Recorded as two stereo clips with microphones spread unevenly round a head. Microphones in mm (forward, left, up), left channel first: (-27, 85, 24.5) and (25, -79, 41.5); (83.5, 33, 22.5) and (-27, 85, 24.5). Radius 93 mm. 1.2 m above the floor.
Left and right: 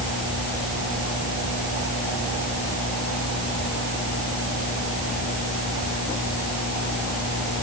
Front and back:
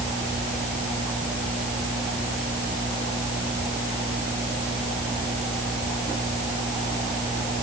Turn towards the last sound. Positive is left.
No sound to turn to.